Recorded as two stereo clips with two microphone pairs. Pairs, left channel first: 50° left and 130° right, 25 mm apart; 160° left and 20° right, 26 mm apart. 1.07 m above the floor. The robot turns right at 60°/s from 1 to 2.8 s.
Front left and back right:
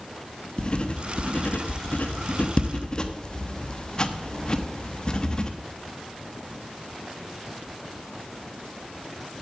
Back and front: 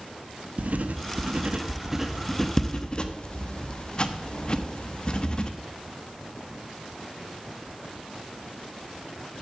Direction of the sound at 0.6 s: Straight ahead.